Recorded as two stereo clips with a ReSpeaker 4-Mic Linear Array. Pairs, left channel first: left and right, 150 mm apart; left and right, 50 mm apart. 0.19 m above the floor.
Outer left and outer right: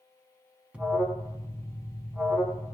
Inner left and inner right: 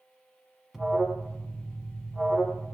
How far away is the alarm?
About 0.9 m.